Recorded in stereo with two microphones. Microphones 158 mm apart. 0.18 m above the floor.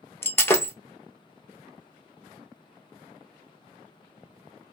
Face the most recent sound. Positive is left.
turn(degrees=15)  # may be behind; listen again after turning